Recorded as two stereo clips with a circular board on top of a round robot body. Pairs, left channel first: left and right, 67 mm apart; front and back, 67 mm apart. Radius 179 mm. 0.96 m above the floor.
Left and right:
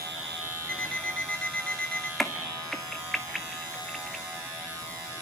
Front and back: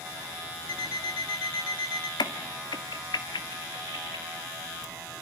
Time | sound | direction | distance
0.7 | an alarm clock | 10° left | 3.5 m
2.2 | a crack | 5° left | 1.8 m